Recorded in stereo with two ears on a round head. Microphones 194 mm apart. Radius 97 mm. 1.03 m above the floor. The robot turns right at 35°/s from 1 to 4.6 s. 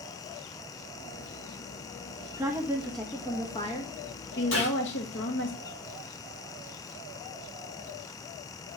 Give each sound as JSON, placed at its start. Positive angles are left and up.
{"t": 2.4, "sound": "a woman speaking", "azimuth_deg": -20, "distance_m": 1.2}
{"t": 4.5, "sound": "a gunshot", "side_deg": 65, "distance_m": 4.5}